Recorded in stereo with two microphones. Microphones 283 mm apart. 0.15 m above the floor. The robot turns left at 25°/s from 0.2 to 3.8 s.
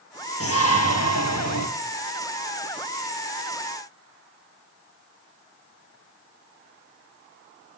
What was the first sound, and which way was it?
A shout, 125° left.